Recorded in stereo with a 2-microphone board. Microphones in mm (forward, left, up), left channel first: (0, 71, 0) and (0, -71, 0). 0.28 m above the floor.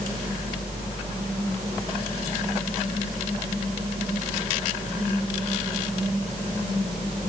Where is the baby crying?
No baby crying in this recording.